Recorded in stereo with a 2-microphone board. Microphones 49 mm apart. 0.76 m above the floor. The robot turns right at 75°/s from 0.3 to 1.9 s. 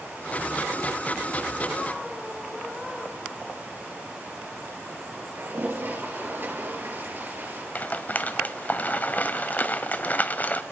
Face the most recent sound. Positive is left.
turn(degrees=35)  # may be behind; listen again after turning